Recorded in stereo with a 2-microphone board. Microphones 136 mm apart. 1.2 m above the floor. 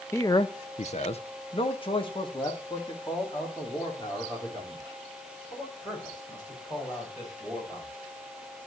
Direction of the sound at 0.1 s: 20° left (ahead or behind).